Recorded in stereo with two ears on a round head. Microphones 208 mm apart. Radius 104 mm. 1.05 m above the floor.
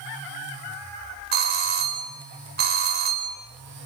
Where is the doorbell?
45° right (ahead or behind), 5 m.